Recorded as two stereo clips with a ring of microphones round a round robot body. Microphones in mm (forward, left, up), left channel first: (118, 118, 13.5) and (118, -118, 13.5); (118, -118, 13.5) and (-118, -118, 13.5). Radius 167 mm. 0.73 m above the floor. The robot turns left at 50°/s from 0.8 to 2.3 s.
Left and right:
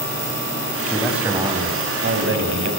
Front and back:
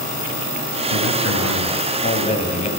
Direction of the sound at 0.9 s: 10° left.